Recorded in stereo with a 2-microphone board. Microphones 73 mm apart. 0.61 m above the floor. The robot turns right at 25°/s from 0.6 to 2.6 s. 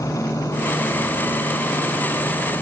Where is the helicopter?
50° left (ahead or behind); by 2.6 s 70° left (ahead or behind).